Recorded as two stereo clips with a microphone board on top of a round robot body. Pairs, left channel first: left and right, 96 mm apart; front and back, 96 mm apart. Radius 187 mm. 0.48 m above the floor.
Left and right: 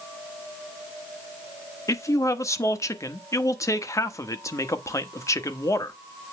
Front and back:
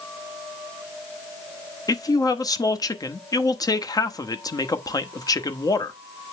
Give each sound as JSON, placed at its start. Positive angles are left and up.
{"t": 1.9, "sound": "a man speaking", "azimuth_deg": 40, "distance_m": 1.3}